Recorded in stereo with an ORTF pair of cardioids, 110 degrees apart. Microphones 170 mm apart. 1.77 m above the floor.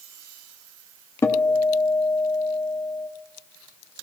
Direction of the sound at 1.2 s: 15° left.